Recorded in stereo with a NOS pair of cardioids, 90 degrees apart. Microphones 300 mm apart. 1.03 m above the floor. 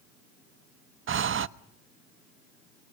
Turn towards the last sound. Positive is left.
turn(degrees=-45)